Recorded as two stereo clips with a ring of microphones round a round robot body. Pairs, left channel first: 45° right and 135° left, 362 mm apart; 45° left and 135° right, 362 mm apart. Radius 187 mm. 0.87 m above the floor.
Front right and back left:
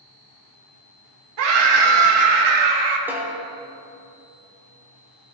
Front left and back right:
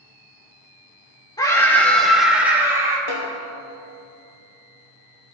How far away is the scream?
About 2.5 m.